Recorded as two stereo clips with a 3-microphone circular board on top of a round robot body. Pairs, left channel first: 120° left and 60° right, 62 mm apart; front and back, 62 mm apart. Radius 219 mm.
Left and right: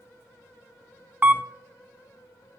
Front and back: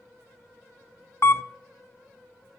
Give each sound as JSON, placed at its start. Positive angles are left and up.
{"t": 1.2, "sound": "a camera shutter", "azimuth_deg": -10, "distance_m": 0.6}